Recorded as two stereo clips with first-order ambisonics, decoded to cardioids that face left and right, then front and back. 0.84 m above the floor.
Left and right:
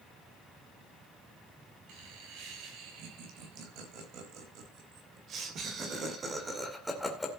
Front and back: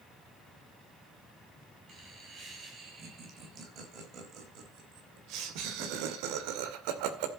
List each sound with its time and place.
1.9 s laughter: 115° right, 6 m; by 7.3 s 170° left, 2.5 m